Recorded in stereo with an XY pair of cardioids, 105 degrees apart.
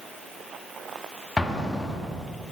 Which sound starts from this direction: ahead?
An explosion, at 1.4 s.